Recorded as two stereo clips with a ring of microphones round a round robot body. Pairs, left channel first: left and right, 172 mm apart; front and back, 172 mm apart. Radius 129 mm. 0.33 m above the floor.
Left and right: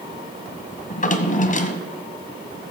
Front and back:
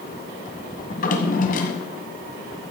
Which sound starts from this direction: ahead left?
A drawer, at 0.9 s.